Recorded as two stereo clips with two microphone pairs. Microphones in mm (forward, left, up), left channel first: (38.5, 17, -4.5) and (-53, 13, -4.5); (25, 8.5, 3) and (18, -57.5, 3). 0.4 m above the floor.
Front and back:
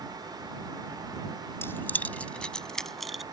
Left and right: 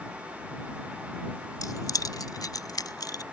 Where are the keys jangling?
65° left; by 3.2 s 90° left.